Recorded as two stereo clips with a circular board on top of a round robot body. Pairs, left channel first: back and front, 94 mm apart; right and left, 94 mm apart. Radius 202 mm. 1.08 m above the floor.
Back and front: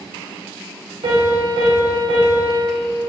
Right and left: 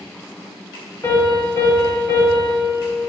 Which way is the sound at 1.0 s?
25° right.